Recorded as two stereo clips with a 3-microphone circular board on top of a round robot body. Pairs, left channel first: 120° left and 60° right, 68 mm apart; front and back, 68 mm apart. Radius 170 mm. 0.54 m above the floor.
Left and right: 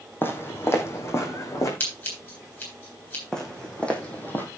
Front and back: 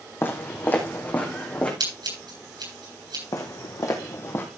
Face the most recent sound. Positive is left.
turn(degrees=60)